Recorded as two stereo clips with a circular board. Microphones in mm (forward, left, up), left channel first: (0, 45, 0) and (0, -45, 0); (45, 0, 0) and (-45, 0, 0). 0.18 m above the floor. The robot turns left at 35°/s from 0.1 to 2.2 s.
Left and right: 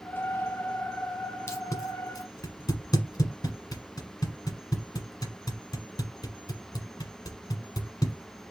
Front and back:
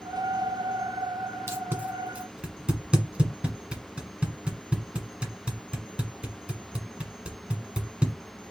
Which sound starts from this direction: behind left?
Tape being pulled, at 1.5 s.